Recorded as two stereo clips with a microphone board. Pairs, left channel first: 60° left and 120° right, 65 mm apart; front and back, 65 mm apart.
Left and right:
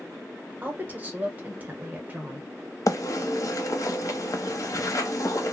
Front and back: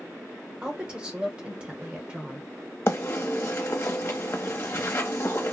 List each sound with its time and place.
0.6 s a woman speaking: 130° right, 0.9 m
2.9 s a bird: 40° left, 0.7 m